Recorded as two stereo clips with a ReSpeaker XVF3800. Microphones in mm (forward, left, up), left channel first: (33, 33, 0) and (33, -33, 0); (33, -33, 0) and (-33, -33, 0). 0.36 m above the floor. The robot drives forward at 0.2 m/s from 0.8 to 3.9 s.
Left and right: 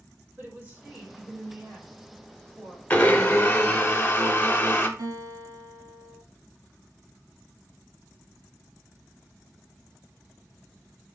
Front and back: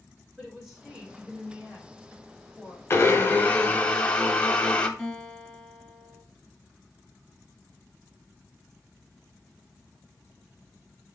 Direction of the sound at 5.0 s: 90° right.